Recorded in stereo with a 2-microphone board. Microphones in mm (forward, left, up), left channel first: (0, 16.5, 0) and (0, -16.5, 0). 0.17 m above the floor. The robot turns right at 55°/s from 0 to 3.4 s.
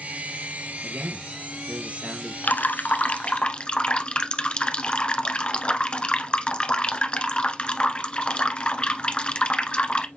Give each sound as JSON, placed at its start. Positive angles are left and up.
{"t": 0.8, "sound": "a man speaking", "azimuth_deg": -95, "distance_m": 3.5}
{"t": 2.4, "sound": "dripping", "azimuth_deg": 90, "distance_m": 1.1}